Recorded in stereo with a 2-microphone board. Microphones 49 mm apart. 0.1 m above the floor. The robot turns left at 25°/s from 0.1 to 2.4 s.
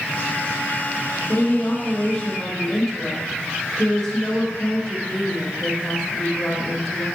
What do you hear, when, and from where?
1.3 s a woman speaking: 35° left (ahead or behind), 2.5 m; by 7.1 s 15° left (ahead or behind), 2.5 m